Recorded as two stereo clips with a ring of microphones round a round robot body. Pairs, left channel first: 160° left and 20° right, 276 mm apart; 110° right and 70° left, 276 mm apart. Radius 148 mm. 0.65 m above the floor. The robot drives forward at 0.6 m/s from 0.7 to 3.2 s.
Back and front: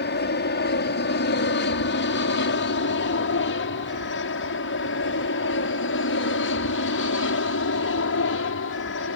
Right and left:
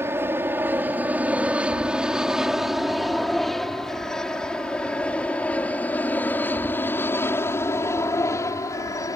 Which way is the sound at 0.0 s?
145° left.